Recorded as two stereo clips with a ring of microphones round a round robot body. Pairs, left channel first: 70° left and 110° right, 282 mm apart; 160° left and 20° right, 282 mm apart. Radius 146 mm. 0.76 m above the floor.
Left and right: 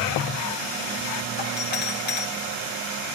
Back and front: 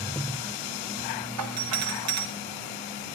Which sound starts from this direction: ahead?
A doorbell, at 1.4 s.